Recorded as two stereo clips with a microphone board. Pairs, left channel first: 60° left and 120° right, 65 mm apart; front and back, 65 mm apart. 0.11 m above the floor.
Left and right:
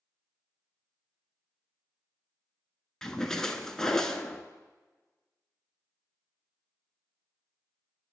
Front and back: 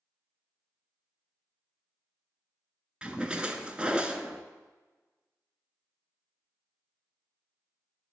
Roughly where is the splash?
Behind left.